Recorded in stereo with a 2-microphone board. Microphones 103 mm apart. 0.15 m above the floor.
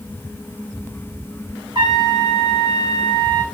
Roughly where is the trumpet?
Right.